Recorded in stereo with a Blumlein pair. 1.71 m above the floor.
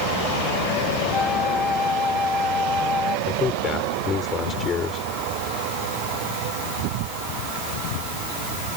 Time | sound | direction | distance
1.1 | a flute | 10° left | ?
3.3 | a man speaking | 20° left | ?